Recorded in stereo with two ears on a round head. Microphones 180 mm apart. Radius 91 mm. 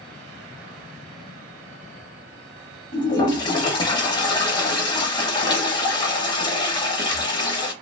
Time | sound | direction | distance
2.9 | a toilet flushing | 20° left (ahead or behind) | 0.8 m